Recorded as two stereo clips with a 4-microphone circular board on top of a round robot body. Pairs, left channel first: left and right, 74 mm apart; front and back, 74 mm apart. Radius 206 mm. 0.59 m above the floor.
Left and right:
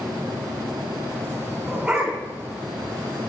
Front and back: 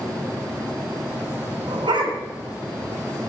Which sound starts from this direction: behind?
A dog barking, at 1.7 s.